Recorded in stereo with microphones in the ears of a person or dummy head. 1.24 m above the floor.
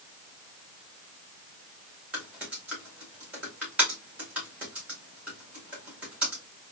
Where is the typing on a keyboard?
5° right (ahead or behind), 1.9 m.